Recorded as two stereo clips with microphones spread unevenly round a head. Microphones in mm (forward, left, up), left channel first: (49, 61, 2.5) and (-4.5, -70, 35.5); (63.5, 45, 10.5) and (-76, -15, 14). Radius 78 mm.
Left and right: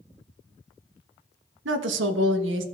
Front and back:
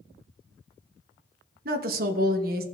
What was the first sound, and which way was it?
A woman speaking, 120° right.